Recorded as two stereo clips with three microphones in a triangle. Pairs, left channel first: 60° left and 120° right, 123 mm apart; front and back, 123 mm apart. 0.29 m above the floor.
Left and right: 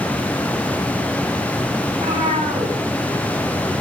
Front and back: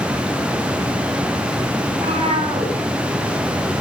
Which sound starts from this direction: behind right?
A cat meowing, at 1.9 s.